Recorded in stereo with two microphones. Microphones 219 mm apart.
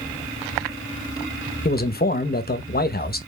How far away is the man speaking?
About 0.8 m.